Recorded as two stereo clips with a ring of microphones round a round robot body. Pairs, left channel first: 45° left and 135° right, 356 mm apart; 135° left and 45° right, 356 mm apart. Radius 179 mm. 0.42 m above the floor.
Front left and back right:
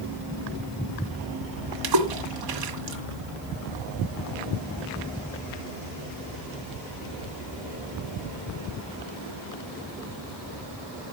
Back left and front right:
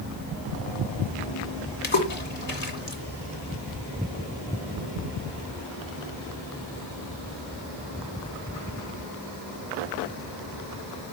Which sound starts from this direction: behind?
A splash, at 1.8 s.